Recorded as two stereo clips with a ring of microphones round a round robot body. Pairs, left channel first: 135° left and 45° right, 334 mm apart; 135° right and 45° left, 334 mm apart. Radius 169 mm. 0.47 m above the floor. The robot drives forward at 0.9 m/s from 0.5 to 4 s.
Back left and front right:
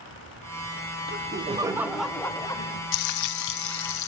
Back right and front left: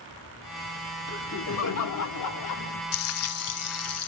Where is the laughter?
95° right, 1.3 m; by 2.8 s 150° right, 2 m.